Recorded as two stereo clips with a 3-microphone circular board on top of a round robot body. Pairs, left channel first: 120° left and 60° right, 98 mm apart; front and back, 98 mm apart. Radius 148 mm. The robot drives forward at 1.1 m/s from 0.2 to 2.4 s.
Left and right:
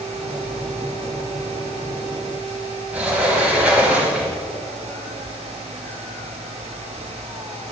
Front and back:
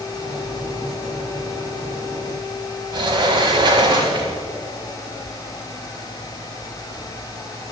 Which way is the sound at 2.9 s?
140° right.